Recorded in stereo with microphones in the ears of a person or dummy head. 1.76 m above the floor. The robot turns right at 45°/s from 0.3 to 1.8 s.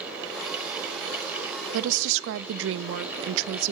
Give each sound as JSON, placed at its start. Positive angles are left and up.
{"t": 1.7, "sound": "a woman speaking", "side_deg": -75, "distance_m": 0.5}